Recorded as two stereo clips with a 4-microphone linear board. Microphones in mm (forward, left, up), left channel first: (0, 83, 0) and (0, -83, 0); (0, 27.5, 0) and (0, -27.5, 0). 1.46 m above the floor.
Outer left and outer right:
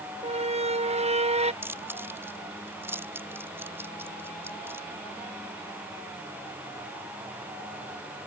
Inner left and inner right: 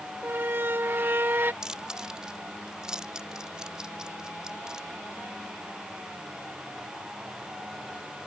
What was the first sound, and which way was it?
A squeak, 40° right (ahead or behind).